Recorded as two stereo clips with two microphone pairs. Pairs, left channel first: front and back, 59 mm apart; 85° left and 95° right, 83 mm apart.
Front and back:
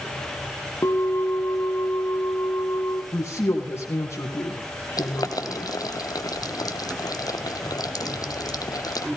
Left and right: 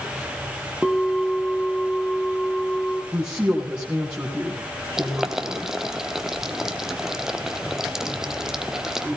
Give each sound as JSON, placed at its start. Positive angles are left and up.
{"t": 0.8, "sound": "a bell", "azimuth_deg": -10, "distance_m": 1.4}
{"t": 3.1, "sound": "a woman speaking", "azimuth_deg": -20, "distance_m": 3.0}
{"t": 5.0, "sound": "boiling", "azimuth_deg": -5, "distance_m": 1.1}